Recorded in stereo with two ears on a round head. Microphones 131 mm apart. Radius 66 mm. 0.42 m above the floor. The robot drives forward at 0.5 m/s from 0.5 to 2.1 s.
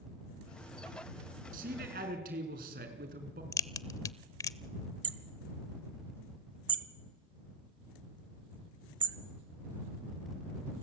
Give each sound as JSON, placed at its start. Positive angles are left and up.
{"t": 1.5, "sound": "a man speaking", "side_deg": -65, "distance_m": 5.0}
{"t": 3.5, "sound": "a crack", "side_deg": 25, "distance_m": 0.7}
{"t": 5.0, "sound": "hammering", "side_deg": -35, "distance_m": 1.2}